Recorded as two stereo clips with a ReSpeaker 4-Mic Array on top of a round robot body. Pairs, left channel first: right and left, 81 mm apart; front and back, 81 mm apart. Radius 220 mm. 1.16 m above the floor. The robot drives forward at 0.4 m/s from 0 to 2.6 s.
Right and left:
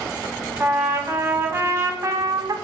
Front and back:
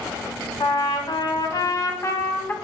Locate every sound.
0.6 s a trumpet: 20° left, 1.2 m; by 2.5 s 65° left, 0.7 m